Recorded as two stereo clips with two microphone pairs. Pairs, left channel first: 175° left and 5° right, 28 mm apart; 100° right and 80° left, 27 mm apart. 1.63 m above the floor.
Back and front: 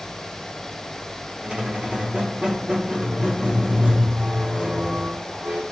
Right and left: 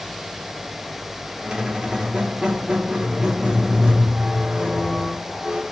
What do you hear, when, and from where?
1.4 s a squeak: 30° left, 1.2 m